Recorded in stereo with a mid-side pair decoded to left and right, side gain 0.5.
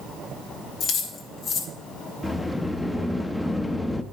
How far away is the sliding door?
About 0.6 m.